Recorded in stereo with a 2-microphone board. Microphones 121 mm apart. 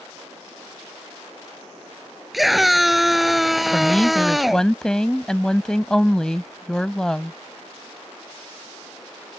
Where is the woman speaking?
5° left (ahead or behind).